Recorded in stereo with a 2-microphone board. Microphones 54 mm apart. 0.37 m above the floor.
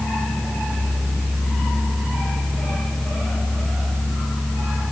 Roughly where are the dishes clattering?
I don't hear dishes clattering.